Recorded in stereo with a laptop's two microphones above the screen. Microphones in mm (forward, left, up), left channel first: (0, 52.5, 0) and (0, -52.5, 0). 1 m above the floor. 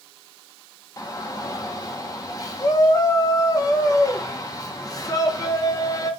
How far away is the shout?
About 0.7 m.